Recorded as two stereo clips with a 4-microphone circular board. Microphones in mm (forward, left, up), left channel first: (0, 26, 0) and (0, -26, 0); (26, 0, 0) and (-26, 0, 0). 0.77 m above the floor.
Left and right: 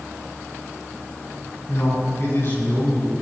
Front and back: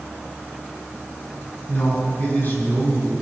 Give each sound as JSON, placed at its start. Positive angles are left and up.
{"t": 1.7, "sound": "a man speaking", "azimuth_deg": 55, "distance_m": 7.0}